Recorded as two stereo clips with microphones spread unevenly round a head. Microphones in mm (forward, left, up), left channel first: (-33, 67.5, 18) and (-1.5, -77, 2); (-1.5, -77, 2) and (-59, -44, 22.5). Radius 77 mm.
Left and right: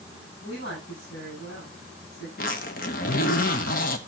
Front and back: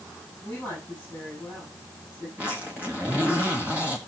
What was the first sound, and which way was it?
A woman speaking, 95° left.